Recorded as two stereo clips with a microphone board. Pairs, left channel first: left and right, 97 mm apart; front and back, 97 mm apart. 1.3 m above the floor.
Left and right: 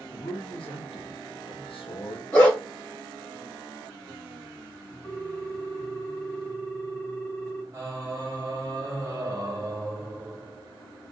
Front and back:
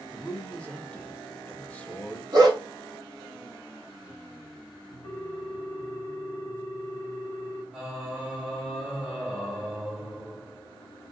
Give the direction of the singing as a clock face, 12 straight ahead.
3 o'clock.